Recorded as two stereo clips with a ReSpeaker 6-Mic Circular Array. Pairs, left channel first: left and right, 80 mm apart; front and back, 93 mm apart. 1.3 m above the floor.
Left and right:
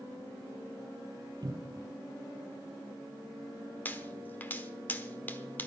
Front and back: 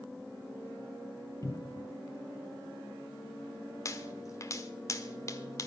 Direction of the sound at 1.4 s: 50° right.